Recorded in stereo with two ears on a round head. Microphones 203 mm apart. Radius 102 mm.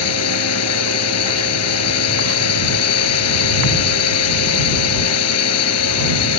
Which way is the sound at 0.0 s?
70° left (ahead or behind).